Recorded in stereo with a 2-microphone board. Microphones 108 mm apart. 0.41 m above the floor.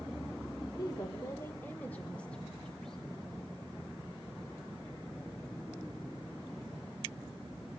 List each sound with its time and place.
0.8 s a woman speaking: 40° left (ahead or behind), 0.9 m; by 3.0 s 5° left (ahead or behind), 3 m